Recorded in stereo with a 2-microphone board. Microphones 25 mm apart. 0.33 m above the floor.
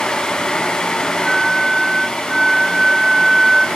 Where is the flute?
10° right (ahead or behind), 1.5 m.